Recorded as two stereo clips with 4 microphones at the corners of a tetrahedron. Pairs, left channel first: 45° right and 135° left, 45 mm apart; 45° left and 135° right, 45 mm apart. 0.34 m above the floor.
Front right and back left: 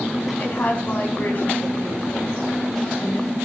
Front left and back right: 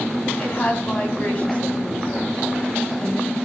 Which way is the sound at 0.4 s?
5° right.